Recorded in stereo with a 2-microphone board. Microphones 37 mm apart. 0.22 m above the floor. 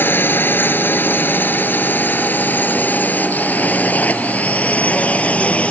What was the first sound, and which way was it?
A drone, 70° left (ahead or behind).